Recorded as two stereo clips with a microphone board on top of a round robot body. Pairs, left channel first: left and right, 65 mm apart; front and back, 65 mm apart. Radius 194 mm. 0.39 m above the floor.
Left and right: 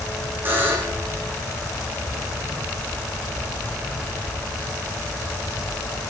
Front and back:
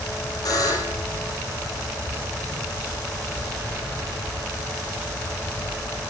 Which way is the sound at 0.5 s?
30° right.